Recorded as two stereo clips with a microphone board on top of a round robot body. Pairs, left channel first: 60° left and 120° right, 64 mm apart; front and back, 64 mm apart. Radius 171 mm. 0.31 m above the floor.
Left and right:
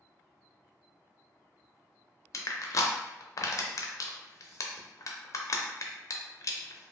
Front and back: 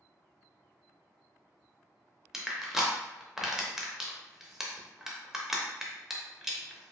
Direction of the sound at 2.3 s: 95° left.